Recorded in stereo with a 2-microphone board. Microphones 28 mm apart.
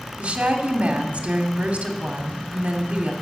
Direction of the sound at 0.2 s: 50° right (ahead or behind).